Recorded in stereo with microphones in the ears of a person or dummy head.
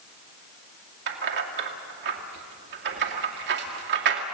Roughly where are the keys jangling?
Right.